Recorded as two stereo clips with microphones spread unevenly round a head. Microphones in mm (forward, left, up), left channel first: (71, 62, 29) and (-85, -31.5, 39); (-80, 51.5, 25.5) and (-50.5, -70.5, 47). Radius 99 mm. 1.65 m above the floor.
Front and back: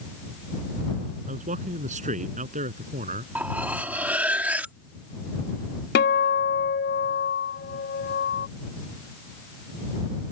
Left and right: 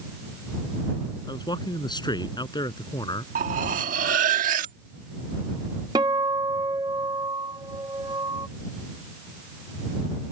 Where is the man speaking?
160° left.